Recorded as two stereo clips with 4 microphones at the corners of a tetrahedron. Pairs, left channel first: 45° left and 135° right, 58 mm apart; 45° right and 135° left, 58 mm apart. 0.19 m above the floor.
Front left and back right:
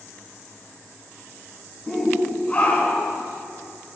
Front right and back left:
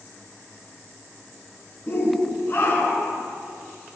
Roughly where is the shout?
Ahead right.